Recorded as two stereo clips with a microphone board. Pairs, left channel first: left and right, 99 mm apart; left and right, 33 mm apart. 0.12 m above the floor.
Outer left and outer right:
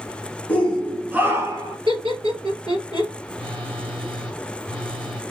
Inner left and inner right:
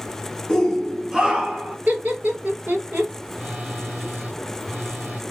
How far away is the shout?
About 1.4 m.